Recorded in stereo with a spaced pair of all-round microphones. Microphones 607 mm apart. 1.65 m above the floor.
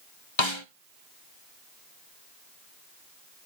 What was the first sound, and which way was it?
A snare drum, 50° left (ahead or behind).